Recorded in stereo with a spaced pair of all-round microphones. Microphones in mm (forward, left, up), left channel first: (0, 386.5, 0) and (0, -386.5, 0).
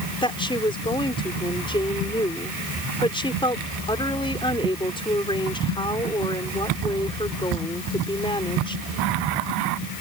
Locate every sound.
0.2 s a woman speaking: 5° left (ahead or behind)